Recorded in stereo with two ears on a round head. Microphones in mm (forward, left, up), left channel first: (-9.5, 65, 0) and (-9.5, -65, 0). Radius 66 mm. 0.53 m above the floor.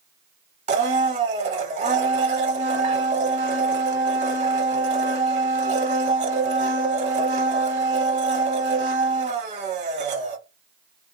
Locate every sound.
0.7 s a blender: 45° right (ahead or behind), 0.8 m